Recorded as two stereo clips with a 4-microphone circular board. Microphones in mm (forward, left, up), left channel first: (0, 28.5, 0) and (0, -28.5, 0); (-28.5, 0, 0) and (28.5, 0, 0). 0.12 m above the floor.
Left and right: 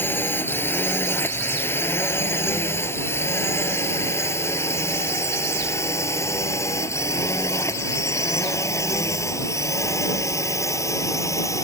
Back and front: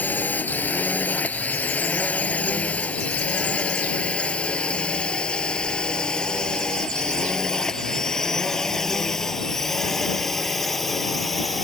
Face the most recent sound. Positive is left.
turn(degrees=95)